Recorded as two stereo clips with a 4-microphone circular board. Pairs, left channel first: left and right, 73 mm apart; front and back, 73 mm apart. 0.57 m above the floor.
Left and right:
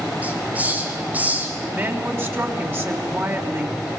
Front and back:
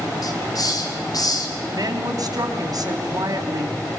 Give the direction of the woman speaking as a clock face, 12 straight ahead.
5 o'clock.